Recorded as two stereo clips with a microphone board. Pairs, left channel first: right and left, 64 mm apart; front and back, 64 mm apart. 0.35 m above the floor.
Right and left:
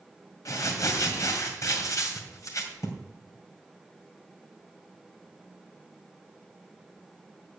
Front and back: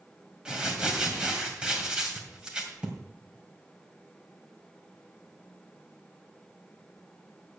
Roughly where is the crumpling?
Right.